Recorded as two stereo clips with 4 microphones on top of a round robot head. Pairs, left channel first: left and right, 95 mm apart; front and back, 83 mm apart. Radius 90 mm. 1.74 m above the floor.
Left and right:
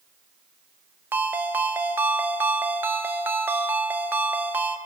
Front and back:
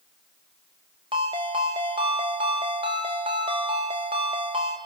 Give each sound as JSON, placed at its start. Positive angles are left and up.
{"t": 1.1, "sound": "a ringtone", "azimuth_deg": -150, "distance_m": 1.1}